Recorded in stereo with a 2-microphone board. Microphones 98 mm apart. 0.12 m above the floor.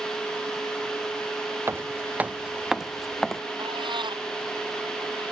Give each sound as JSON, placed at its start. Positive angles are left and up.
{"t": 1.7, "sound": "footsteps", "side_deg": -25}
{"t": 3.6, "sound": "a cat meowing", "side_deg": -65}